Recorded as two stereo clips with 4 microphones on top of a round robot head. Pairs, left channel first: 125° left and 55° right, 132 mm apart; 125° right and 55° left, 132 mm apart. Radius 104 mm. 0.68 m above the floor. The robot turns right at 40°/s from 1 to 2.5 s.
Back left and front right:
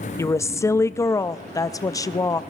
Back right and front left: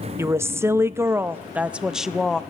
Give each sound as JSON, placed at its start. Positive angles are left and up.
{"t": 0.2, "sound": "a woman speaking", "azimuth_deg": 95, "distance_m": 0.5}